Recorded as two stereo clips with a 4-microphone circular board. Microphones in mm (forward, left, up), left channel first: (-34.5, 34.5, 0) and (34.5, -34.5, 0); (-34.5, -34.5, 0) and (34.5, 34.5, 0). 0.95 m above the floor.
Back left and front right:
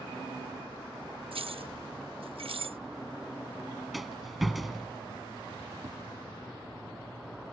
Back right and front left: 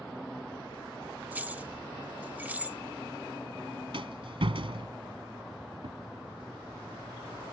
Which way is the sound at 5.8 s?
15° left.